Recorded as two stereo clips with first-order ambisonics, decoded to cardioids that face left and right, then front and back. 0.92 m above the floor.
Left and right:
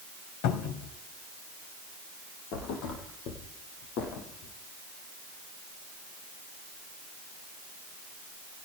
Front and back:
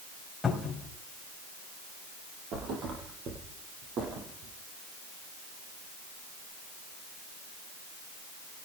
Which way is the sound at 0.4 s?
80° left.